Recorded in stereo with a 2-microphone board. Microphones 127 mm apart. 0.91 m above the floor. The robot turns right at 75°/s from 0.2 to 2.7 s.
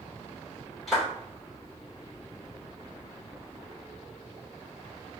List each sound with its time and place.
0.9 s a clap: centre (ahead or behind), 2.5 m; by 1.1 s 15° right (ahead or behind), 2.5 m